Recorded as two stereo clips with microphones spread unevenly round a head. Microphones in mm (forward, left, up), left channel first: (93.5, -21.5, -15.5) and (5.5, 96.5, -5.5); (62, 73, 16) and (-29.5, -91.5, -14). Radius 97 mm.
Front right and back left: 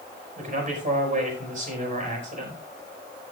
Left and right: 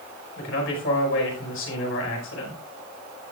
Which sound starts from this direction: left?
A man speaking, at 0.4 s.